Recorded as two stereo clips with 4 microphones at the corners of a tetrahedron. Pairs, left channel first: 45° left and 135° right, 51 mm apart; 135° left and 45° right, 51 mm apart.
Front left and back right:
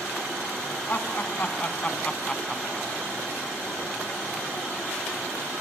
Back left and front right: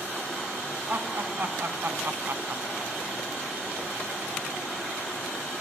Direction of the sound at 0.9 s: 5° right.